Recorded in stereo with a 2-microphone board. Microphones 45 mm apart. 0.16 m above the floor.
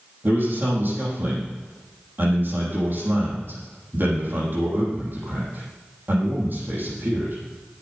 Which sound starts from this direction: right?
A man speaking, at 0.2 s.